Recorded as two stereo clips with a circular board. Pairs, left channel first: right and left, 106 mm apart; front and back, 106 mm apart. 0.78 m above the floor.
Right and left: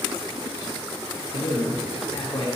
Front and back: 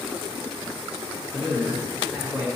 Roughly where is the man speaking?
Right.